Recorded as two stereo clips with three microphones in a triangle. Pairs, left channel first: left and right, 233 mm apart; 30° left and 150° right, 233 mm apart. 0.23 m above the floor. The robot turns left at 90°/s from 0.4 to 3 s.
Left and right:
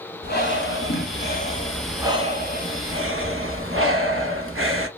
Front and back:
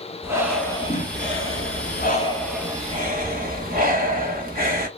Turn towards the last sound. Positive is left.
turn(degrees=-100)